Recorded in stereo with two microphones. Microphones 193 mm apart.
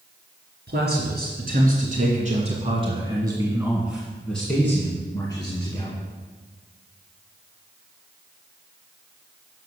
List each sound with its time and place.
0.7 s a man speaking: 60° right (ahead or behind), 2.5 m; by 6.0 s 30° left (ahead or behind), 2 m